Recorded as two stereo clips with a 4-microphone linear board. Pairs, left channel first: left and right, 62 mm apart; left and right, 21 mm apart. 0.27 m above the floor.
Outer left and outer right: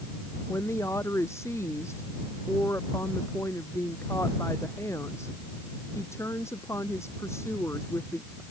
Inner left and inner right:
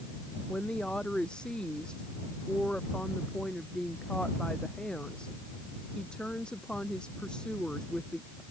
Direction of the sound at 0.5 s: 50° left (ahead or behind).